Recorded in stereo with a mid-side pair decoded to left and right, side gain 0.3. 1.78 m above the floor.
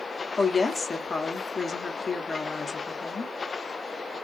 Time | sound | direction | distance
0.4 | a woman speaking | 55° left | 0.8 m